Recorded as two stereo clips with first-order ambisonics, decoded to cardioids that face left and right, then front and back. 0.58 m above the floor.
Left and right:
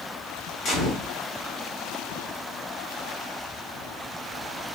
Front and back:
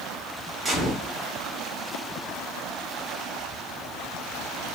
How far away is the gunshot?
About 1.0 m.